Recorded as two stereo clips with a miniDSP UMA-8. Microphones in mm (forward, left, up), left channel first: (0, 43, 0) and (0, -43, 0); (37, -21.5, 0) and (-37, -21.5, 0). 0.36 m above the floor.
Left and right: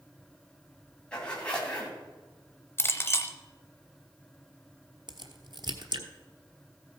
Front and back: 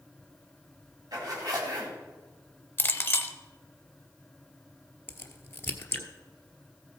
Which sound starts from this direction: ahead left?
A clink, at 2.8 s.